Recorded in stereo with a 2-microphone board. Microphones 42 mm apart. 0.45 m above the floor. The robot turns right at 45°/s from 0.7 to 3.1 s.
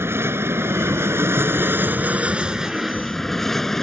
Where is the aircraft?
70° right (ahead or behind); by 3.8 s 10° left (ahead or behind).